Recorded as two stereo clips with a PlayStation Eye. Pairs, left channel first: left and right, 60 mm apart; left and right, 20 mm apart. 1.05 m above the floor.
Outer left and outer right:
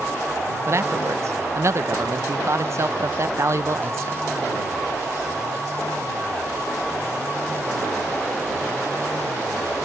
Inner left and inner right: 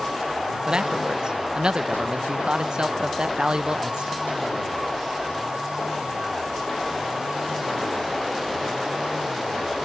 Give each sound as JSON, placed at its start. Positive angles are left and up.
{"t": 0.7, "sound": "a man speaking", "side_deg": -50}